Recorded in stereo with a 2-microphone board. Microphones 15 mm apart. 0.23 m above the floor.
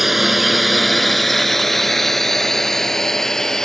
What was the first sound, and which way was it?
A drone, 15° right (ahead or behind).